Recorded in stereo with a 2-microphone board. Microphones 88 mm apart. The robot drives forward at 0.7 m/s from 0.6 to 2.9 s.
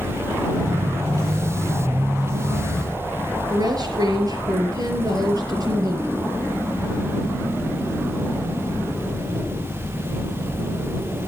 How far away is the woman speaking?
About 6 m.